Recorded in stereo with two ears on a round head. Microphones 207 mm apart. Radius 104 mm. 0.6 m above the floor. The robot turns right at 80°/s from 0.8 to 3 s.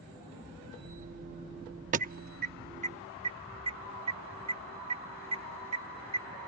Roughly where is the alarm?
Right.